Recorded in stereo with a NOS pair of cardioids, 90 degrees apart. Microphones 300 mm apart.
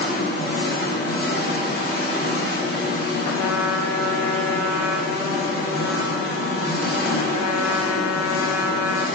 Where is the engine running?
30° left, 1.0 m.